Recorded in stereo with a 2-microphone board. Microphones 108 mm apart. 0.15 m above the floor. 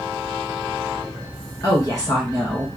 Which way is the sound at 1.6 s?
35° left (ahead or behind).